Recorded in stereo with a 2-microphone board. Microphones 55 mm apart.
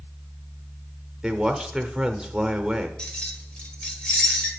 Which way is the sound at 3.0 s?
15° left (ahead or behind).